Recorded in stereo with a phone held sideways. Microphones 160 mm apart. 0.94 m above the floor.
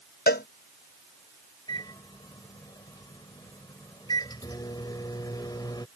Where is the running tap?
No running tap in this recording.